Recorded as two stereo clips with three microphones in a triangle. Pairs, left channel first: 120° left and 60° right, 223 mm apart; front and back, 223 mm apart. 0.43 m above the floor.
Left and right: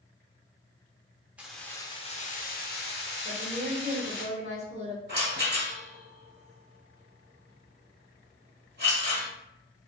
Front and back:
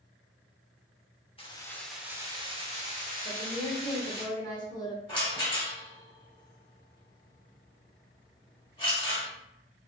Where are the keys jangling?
20° left, 0.6 m; by 4.2 s 145° left, 1.4 m.